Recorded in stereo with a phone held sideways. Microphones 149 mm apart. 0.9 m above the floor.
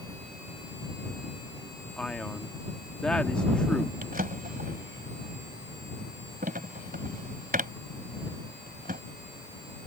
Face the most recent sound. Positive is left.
turn(degrees=-75)  # may be behind; listen again after turning